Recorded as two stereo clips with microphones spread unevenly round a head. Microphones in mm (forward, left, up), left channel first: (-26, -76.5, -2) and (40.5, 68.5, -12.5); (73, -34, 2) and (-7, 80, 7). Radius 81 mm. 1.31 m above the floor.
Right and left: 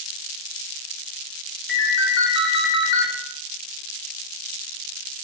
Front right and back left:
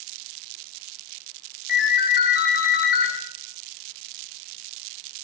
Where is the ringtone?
95° right, 2.5 m.